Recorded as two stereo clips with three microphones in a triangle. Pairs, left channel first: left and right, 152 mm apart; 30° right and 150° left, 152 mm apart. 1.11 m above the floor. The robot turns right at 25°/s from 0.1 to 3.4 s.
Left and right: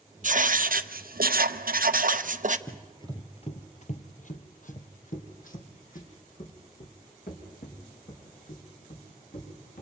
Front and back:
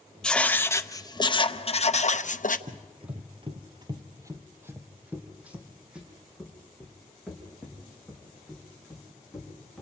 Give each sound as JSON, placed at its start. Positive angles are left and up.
{"t": 0.2, "sound": "writing", "azimuth_deg": -115, "distance_m": 0.7}
{"t": 2.7, "sound": "running footsteps", "azimuth_deg": 140, "distance_m": 1.4}